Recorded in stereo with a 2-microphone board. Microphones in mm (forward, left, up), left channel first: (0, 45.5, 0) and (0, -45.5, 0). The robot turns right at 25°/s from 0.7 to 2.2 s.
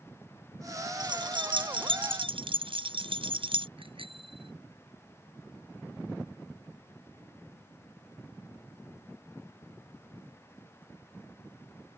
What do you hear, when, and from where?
1.0 s keys jangling: 120° right; by 3.7 s 90° right
3.8 s a bicycle bell: 90° right